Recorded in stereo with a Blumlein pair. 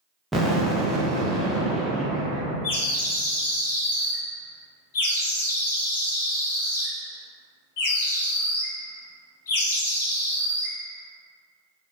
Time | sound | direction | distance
0.3 | an explosion | 5° right | 0.5 m
2.6 | a bird | 55° left | 0.6 m